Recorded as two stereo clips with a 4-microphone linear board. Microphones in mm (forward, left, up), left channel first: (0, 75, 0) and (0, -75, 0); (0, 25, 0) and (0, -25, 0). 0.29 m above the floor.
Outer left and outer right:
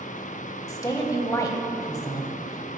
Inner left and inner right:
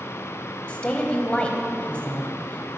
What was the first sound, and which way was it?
A woman speaking, 25° left (ahead or behind).